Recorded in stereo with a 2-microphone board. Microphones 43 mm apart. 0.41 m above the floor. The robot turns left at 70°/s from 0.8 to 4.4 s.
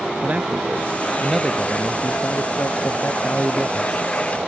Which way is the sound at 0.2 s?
140° right.